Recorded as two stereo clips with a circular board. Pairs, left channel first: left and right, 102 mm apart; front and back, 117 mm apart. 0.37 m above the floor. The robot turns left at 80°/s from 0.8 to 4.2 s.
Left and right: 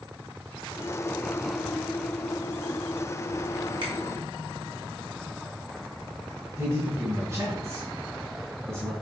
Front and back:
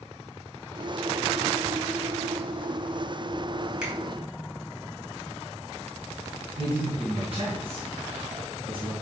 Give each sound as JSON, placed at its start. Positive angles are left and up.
{"t": 3.8, "sound": "a finger snap", "azimuth_deg": -100, "distance_m": 2.5}
{"t": 6.6, "sound": "a man speaking", "azimuth_deg": -150, "distance_m": 2.5}